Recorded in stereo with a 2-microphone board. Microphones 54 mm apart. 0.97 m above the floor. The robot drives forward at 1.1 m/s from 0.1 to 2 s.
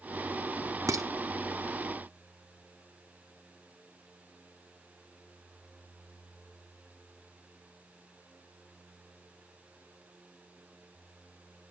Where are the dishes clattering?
75° right (ahead or behind), 0.9 m; by 1.1 s 85° right, 0.9 m.